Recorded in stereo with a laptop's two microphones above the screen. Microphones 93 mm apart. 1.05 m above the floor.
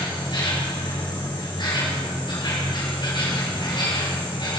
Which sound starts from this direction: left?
An insect, at 0.0 s.